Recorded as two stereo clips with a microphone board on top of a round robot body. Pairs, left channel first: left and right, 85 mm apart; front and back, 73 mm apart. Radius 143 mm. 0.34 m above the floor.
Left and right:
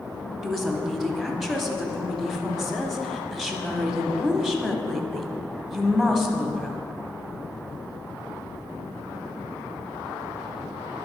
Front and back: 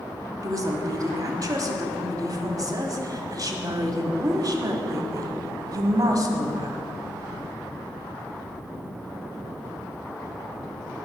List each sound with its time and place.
0.4 s a woman speaking: straight behind, 1.1 m